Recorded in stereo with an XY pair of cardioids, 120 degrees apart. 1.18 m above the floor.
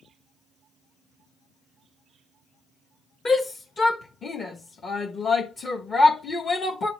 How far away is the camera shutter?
I don't hear a camera shutter.